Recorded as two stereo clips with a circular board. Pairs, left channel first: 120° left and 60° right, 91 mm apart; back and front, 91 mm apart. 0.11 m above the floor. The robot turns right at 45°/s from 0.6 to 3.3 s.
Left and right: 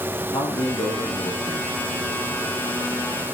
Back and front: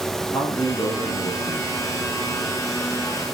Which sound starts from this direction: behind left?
A man speaking, at 0.3 s.